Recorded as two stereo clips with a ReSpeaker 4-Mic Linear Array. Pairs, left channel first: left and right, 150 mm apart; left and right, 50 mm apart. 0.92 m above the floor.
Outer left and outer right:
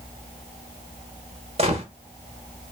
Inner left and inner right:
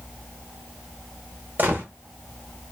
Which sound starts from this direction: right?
A gunshot, at 1.6 s.